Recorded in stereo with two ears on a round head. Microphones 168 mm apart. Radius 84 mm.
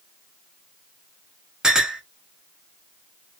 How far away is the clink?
About 0.7 m.